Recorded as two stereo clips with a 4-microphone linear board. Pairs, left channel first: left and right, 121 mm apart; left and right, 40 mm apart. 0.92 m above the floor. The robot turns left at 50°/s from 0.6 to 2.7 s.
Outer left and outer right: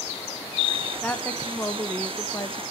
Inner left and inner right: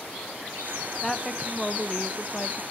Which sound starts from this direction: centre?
A woman speaking, at 1.0 s.